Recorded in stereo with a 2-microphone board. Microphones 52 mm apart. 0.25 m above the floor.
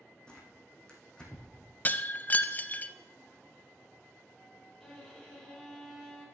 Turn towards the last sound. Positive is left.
turn(degrees=10)  # may be behind; listen again after turning